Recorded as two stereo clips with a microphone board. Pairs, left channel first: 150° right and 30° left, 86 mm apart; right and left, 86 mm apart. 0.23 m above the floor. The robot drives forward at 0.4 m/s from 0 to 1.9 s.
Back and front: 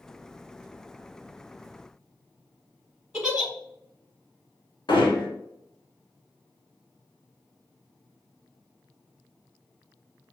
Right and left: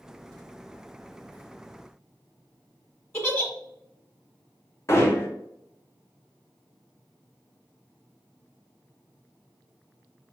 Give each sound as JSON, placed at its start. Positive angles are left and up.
{"t": 3.1, "sound": "a giggle", "azimuth_deg": -45, "distance_m": 1.4}
{"t": 4.9, "sound": "hammering", "azimuth_deg": -145, "distance_m": 1.4}